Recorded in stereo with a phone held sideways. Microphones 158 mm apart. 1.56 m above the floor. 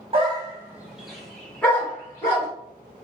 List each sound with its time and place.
0.1 s a dog barking: 35° right (ahead or behind), 1.3 m; by 2.5 s 20° left (ahead or behind), 3.5 m